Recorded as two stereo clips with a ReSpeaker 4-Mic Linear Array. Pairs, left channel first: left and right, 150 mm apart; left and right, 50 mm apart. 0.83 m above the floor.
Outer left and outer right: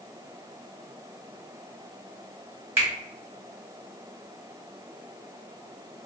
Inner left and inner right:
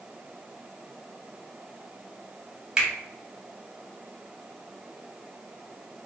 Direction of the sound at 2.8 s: 15° right (ahead or behind).